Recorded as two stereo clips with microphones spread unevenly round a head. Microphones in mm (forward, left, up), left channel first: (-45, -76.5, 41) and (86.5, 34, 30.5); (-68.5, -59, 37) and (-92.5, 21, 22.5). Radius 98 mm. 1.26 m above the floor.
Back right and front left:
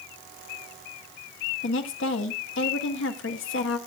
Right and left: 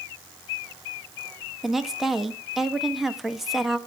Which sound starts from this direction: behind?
A woman speaking, at 1.6 s.